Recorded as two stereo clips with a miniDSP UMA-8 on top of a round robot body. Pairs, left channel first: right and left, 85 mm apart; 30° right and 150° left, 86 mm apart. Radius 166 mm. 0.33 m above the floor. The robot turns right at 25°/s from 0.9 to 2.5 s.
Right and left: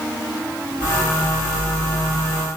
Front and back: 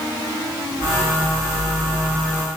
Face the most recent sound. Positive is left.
No sound to turn to.